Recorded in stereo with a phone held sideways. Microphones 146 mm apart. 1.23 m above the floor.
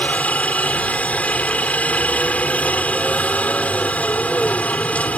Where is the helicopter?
10° left (ahead or behind).